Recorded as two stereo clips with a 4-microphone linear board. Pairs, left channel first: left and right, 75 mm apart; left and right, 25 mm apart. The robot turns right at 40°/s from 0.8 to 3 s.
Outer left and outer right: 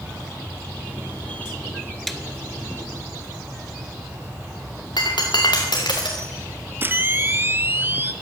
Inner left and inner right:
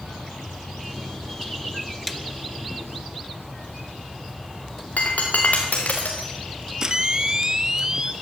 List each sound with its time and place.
2.1 s a snare drum: centre (ahead or behind), 0.9 m; by 2.2 s 5° left (ahead or behind), 0.9 m
5.0 s breaking glass: 75° left (ahead or behind), 3.5 m
6.8 s a camera shutter: 30° right (ahead or behind), 0.9 m